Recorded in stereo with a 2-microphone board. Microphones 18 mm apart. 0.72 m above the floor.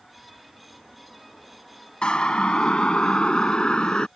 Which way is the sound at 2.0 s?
60° left (ahead or behind).